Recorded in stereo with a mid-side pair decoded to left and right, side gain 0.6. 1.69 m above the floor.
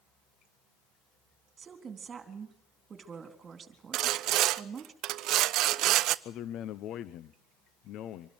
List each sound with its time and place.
1.6 s a woman speaking: 35° right, 3.5 m
3.9 s sawing: 65° right, 0.7 m
6.2 s a man speaking: 60° left, 0.9 m